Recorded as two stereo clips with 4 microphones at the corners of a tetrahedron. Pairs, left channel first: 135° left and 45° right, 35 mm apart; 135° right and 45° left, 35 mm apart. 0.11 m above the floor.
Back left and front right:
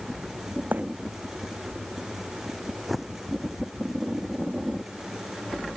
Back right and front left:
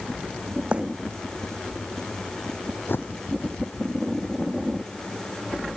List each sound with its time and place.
0.7 s a bird: 10° right
2.9 s a bird: 135° right